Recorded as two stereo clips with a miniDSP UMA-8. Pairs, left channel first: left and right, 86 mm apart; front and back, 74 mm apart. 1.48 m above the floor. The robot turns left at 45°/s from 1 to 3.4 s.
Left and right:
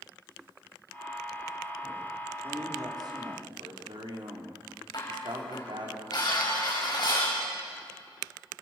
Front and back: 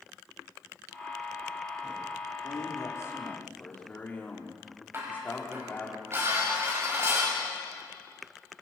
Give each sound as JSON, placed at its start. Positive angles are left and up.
{"t": 2.4, "sound": "a man speaking", "azimuth_deg": -20, "distance_m": 4.0}
{"t": 4.9, "sound": "dishes clattering", "azimuth_deg": 125, "distance_m": 5.5}